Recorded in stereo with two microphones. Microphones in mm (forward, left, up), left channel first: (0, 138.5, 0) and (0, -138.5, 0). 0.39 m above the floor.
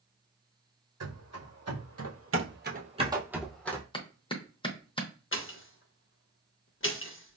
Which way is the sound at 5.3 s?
50° left (ahead or behind).